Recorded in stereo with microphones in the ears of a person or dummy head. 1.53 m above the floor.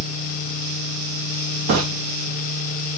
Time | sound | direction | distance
1.7 | footsteps | 55° right (ahead or behind) | 4 m